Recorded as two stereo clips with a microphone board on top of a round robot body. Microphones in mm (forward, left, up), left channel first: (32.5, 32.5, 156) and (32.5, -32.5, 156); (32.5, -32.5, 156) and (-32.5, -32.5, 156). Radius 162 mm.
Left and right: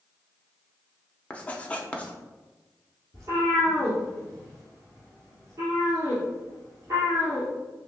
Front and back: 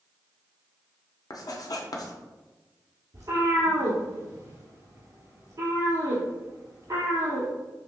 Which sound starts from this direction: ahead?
Writing, at 1.3 s.